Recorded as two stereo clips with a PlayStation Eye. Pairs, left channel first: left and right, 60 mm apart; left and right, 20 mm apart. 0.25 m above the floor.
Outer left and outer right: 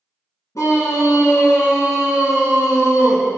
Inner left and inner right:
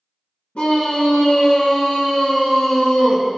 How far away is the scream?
About 3.5 m.